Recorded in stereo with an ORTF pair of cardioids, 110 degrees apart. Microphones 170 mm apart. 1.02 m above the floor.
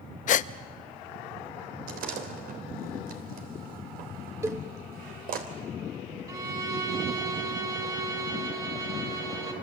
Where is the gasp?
50° left, 0.7 m.